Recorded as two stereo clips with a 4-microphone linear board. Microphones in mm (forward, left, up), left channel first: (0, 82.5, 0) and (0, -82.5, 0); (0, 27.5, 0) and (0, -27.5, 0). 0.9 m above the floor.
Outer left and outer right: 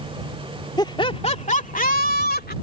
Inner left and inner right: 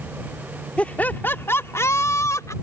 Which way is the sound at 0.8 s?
25° left (ahead or behind).